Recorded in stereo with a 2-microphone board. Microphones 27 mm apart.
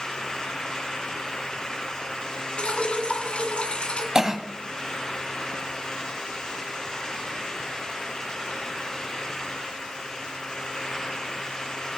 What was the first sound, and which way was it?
Dripping, 45° left (ahead or behind).